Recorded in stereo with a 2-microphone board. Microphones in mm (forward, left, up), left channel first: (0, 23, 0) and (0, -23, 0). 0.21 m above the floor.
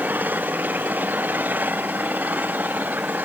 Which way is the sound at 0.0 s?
35° right (ahead or behind).